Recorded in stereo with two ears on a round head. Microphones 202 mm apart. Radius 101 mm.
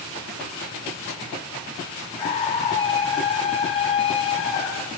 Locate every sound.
2.2 s a scream: 25° left (ahead or behind), 4 m